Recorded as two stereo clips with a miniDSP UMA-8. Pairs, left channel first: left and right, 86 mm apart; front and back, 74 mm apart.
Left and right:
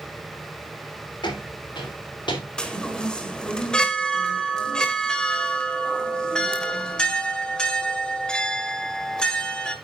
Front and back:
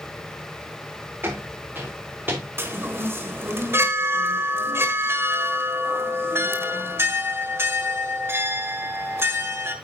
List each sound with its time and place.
1.2 s footsteps: 120° left, 5 m
2.6 s a chime: 165° left, 1.4 m